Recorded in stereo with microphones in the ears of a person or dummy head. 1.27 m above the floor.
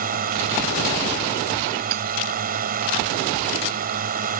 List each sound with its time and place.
0.0 s a drone: 45° right (ahead or behind)
1.9 s hammering: 60° right (ahead or behind)